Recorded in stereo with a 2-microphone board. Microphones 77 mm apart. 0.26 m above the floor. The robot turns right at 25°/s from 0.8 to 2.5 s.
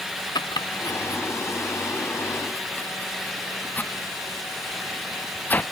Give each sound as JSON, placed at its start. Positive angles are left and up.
{"t": 0.3, "sound": "chopping", "side_deg": 65}